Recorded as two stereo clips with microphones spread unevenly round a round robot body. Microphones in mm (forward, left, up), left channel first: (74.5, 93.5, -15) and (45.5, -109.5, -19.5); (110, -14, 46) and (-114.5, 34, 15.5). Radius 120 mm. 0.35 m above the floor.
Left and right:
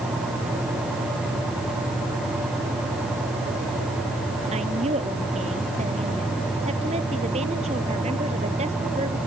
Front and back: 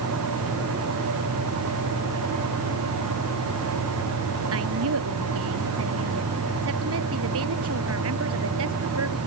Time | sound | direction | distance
4.5 | a woman speaking | 165° right | ?